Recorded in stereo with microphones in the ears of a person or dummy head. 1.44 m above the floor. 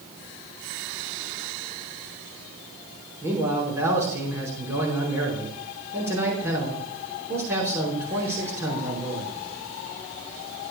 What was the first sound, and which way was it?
A man speaking, 10° right (ahead or behind).